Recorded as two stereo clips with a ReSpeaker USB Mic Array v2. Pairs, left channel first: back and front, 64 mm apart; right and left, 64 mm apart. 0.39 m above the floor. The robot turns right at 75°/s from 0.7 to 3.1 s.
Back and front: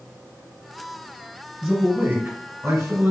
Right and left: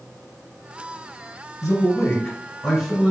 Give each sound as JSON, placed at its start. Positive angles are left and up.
{"t": 1.6, "sound": "a man speaking", "azimuth_deg": -90, "distance_m": 1.6}